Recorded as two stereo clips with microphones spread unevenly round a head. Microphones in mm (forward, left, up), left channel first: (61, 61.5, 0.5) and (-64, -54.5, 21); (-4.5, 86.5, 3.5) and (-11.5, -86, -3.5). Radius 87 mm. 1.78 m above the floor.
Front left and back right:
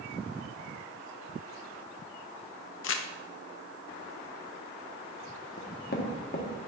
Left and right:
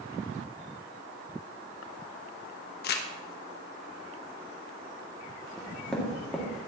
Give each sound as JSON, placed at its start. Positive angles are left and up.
{"t": 2.8, "sound": "crumpling", "azimuth_deg": 60, "distance_m": 0.9}
{"t": 5.6, "sound": "knocking", "azimuth_deg": 0, "distance_m": 1.8}